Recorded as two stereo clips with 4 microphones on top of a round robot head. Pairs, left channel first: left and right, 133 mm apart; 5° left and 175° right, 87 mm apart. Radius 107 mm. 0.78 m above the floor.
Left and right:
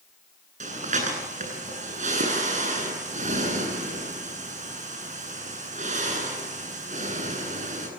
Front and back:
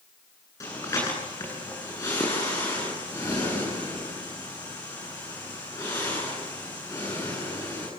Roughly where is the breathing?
Ahead right.